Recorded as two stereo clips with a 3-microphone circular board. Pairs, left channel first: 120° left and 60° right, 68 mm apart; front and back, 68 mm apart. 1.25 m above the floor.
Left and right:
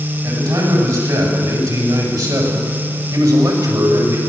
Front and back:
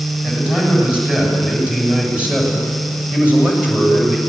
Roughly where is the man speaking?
Right.